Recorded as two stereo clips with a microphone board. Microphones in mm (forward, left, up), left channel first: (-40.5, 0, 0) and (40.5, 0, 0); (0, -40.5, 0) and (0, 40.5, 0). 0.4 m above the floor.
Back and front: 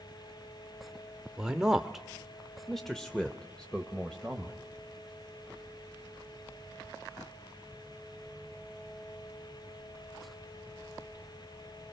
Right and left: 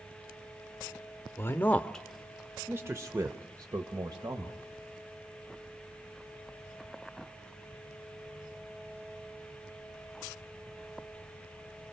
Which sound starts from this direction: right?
A man speaking, at 1.4 s.